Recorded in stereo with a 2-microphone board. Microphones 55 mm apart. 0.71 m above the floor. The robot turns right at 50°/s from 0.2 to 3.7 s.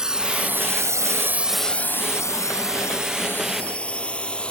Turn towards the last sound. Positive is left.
turn(degrees=20)  # may be behind; listen again after turning